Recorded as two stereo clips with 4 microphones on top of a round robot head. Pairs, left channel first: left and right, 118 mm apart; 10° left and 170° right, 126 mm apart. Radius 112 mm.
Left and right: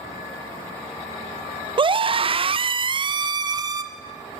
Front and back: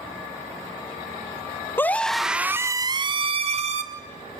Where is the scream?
60° right, 1.2 m; by 3.8 s 150° right, 1.7 m.